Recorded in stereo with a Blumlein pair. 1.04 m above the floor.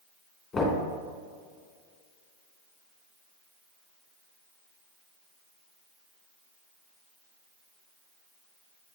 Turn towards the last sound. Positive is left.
turn(degrees=15)